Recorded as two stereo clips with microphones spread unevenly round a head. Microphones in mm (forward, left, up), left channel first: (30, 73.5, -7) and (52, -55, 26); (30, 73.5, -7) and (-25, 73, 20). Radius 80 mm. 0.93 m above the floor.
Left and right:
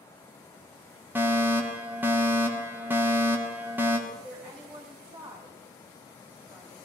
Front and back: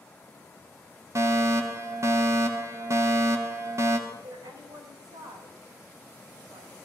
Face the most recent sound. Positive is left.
turn(degrees=-175)